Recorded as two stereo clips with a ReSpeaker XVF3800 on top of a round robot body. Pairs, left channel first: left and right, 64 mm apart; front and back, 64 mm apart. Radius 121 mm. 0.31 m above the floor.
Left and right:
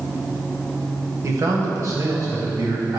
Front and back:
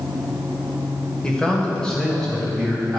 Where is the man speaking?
75° right, 1.4 m; by 3.0 s 80° right, 2 m.